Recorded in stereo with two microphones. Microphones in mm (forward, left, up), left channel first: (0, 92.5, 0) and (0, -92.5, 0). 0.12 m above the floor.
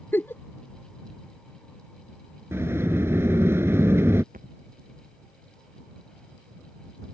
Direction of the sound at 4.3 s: 50° right (ahead or behind).